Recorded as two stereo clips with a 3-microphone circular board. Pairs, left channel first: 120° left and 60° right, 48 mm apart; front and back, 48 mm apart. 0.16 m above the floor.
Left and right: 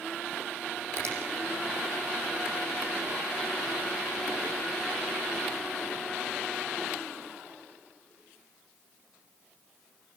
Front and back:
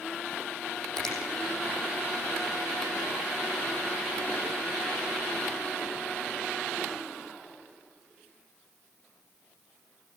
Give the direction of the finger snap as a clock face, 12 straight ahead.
3 o'clock.